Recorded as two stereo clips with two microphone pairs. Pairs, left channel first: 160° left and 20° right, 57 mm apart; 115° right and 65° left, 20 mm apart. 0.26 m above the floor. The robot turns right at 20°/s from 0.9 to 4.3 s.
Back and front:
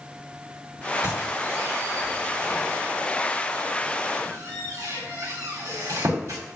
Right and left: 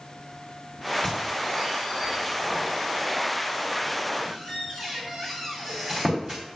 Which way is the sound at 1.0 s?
45° right.